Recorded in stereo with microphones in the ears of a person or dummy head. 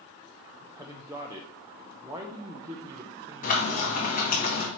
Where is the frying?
45° left (ahead or behind), 1.7 m.